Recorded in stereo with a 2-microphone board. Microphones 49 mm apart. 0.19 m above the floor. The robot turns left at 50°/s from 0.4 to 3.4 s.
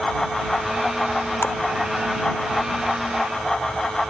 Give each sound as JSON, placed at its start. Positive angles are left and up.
{"t": 1.4, "sound": "a splash", "side_deg": 45}